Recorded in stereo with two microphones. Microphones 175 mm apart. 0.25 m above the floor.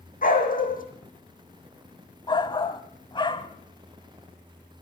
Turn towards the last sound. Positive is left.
turn(degrees=25)  # may be behind; listen again after turning